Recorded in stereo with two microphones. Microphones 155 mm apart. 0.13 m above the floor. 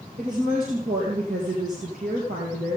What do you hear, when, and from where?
0.2 s a woman speaking: 60° right (ahead or behind), 2.5 m